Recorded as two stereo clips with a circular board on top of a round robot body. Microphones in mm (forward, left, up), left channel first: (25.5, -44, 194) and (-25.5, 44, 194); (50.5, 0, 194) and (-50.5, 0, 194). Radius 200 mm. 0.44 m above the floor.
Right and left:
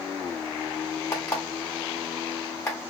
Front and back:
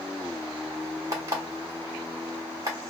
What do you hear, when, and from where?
1.1 s an alarm clock: 125° right, 1.5 m